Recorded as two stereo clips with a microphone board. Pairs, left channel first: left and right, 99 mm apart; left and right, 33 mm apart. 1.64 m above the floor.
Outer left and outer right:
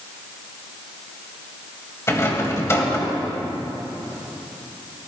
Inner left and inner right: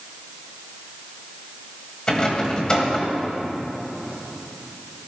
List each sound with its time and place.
2.1 s a rattle: 30° left (ahead or behind), 1.6 m